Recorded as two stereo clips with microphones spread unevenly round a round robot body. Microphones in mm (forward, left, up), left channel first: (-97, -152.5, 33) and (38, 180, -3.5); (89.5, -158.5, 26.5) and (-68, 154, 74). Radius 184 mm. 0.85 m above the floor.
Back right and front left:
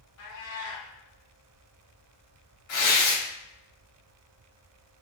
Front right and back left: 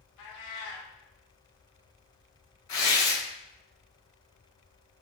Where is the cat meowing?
90° right, 0.6 m.